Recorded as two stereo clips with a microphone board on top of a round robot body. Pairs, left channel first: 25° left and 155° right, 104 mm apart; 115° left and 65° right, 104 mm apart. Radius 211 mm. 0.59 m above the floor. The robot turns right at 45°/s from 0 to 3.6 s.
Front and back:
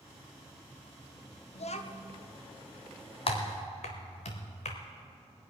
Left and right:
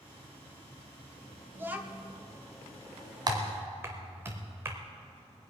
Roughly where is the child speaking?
Ahead.